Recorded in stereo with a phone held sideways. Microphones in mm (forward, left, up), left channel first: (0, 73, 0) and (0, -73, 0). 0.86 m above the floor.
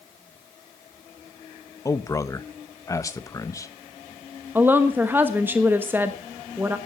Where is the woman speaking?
15° right (ahead or behind), 1.1 m.